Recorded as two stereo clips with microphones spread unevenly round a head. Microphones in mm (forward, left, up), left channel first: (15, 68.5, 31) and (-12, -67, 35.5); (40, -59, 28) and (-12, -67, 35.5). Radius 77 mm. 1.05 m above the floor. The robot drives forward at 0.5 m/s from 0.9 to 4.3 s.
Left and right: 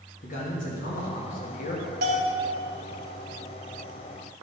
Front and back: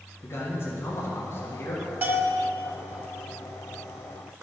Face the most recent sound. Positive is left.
turn(degrees=-150)